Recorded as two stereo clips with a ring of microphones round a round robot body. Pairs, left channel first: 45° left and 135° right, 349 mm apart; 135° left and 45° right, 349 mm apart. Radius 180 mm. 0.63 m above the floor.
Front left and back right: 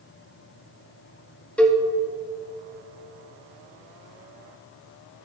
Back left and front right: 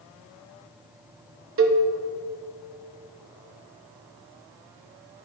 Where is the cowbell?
40° right, 1.0 m.